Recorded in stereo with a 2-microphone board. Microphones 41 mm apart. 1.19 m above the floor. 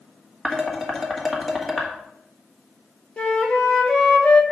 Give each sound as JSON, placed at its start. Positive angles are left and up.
{"t": 0.5, "sound": "dishes clattering", "side_deg": 0, "distance_m": 1.3}
{"t": 3.2, "sound": "a flute", "side_deg": 25, "distance_m": 1.1}